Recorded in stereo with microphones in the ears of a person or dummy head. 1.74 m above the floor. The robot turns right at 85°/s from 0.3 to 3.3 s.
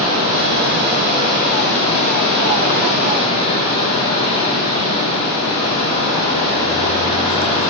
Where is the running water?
110° right, 6 m; by 7.7 s 145° left, 6 m.